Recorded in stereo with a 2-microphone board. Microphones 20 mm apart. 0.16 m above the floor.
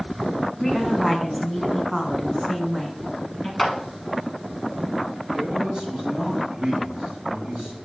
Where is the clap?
Centre (ahead or behind), 1.1 m.